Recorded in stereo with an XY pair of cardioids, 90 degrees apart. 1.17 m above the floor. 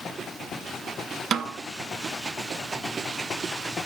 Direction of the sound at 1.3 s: 60° right.